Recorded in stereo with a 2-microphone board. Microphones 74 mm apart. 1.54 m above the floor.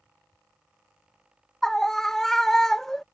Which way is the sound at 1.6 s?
5° left (ahead or behind).